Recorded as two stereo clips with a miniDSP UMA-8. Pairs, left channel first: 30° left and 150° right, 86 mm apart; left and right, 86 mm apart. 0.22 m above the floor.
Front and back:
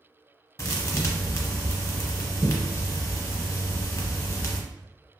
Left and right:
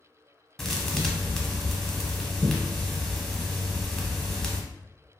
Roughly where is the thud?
Ahead.